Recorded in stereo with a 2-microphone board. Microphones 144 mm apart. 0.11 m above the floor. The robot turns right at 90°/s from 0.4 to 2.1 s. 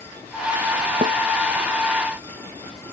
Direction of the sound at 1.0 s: 65° right (ahead or behind).